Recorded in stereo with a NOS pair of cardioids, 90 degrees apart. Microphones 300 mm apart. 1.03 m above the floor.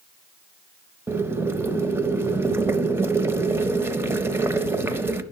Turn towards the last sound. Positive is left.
turn(degrees=-10)